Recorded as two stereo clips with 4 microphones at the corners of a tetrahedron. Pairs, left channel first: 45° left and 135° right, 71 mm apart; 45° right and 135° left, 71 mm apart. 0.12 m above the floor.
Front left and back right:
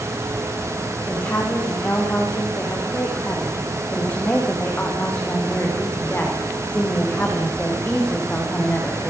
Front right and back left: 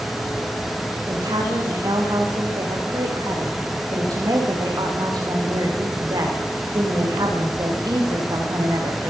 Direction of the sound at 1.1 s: 110° left.